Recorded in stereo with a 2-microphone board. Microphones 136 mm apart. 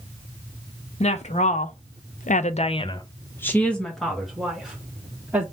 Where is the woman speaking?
50° left (ahead or behind), 0.9 m; by 5.4 s 10° right (ahead or behind), 1.6 m.